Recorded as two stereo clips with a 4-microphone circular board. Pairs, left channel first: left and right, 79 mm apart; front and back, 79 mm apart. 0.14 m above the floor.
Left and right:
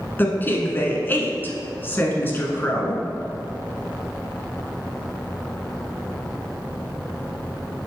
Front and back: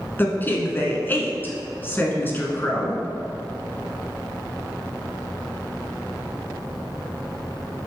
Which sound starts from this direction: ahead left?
A woman speaking, at 0.2 s.